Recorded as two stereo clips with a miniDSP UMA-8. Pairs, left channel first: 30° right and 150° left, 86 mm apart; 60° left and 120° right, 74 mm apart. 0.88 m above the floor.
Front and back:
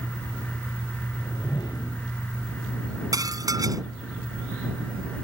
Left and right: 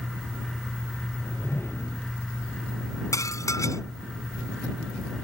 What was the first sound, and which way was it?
A whoosh, 5° left.